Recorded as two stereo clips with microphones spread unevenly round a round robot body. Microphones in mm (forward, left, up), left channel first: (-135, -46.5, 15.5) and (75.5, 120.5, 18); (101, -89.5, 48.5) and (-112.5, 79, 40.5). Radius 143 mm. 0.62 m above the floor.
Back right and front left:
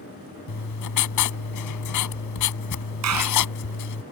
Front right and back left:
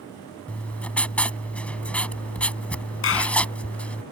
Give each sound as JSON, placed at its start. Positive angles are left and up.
{"t": 0.5, "sound": "writing", "azimuth_deg": -125}
{"t": 3.0, "sound": "a clap", "azimuth_deg": 5}